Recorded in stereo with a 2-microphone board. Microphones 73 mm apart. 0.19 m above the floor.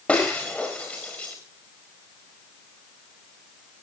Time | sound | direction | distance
0.1 | breaking glass | 15° left (ahead or behind) | 5.5 m